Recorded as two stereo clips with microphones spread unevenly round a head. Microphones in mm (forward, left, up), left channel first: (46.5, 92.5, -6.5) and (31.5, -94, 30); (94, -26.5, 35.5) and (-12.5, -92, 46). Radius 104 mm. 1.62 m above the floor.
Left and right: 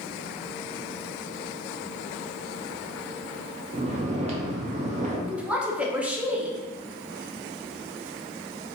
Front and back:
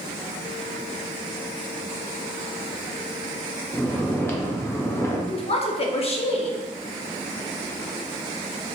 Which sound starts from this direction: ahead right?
Snoring, at 3.7 s.